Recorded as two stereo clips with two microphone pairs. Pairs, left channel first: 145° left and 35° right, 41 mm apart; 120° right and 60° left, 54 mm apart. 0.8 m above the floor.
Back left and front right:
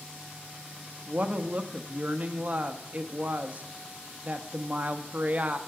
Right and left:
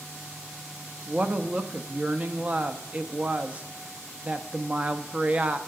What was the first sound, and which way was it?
A woman speaking, 5° left.